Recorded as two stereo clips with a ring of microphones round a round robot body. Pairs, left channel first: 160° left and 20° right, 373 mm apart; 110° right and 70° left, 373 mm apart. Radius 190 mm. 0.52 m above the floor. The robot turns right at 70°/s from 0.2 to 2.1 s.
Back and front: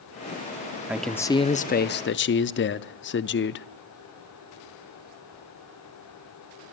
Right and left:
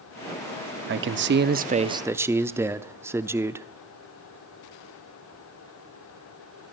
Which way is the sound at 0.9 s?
60° left.